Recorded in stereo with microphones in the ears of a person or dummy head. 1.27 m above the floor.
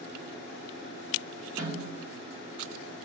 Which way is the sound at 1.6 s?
20° right (ahead or behind).